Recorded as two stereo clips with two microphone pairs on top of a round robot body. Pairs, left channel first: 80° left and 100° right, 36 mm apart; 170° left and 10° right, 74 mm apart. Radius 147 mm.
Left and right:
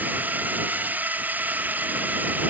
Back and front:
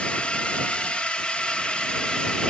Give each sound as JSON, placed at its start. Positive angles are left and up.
{"t": 0.0, "sound": "a drone", "azimuth_deg": -105}